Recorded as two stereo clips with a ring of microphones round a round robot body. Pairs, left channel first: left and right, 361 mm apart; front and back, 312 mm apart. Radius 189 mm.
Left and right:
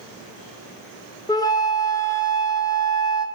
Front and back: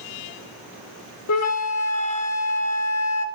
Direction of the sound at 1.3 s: 15° left.